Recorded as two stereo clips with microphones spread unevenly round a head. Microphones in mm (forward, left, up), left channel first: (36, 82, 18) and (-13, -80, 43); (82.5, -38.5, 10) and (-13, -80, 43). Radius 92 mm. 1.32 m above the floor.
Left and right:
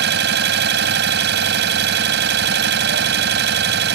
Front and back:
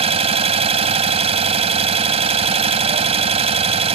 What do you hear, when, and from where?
0.0 s an engine running: 135° right